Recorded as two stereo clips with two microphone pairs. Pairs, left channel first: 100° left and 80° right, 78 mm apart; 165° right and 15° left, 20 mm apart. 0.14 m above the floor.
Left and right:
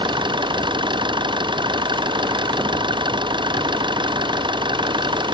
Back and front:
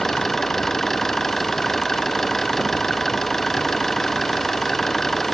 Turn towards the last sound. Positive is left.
turn(degrees=-90)